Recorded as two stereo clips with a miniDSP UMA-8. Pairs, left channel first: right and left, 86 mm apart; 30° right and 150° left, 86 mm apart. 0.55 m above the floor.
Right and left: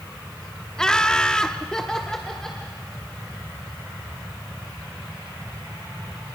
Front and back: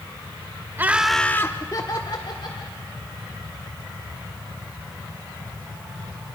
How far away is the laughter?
About 0.9 m.